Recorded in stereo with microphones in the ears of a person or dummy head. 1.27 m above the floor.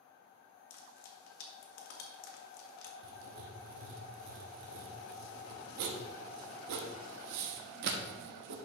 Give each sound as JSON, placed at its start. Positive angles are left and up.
{"t": 0.7, "sound": "frying", "side_deg": 60, "distance_m": 1.4}
{"t": 3.0, "sound": "writing", "side_deg": -60, "distance_m": 0.9}